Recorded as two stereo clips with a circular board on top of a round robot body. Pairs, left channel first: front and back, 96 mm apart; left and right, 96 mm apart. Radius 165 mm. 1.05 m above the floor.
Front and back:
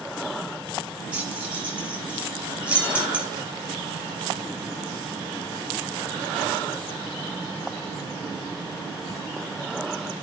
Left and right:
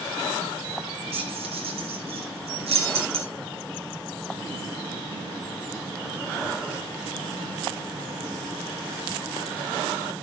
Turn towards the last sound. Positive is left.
turn(degrees=-100)